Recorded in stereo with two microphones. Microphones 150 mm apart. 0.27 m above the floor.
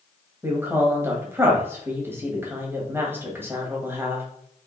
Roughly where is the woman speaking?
Centre.